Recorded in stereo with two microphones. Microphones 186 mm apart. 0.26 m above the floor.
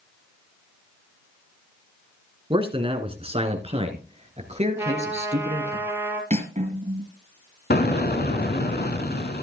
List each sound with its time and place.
2.5 s a man speaking: 30° right (ahead or behind), 2 m; by 5.8 s 40° right (ahead or behind), 4 m
4.8 s a trumpet: 15° right (ahead or behind), 3.5 m
6.3 s cutlery clinking: 45° right (ahead or behind), 2.5 m
7.7 s an explosion: 65° left (ahead or behind), 1.3 m